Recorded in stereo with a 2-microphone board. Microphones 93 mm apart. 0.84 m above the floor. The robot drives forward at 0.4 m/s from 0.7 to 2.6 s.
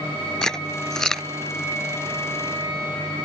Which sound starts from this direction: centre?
Chewing, at 0.4 s.